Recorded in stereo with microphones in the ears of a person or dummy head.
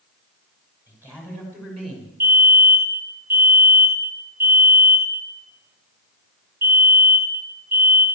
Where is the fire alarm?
20° right (ahead or behind), 5.5 m.